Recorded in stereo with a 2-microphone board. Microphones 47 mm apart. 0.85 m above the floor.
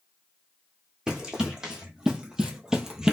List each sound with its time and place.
1.1 s running footsteps: 15° right (ahead or behind), 1.8 m; by 3.1 s 10° right (ahead or behind), 0.9 m